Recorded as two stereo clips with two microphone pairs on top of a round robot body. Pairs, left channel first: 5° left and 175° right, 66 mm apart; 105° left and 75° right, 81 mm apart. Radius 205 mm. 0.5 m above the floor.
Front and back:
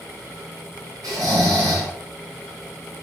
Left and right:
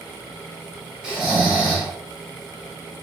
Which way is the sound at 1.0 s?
155° right.